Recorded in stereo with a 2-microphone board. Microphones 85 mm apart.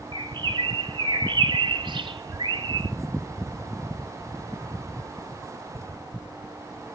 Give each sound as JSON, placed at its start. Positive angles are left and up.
{"t": 0.1, "sound": "a bird", "side_deg": -75, "distance_m": 1.1}